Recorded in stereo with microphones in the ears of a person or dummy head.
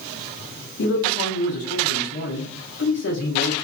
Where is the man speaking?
45° left (ahead or behind), 0.7 m.